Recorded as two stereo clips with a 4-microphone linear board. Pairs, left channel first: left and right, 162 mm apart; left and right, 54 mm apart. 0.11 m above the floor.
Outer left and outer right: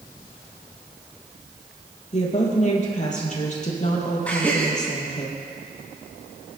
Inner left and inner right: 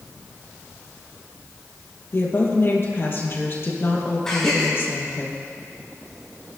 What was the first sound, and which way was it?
A woman speaking, 45° left (ahead or behind).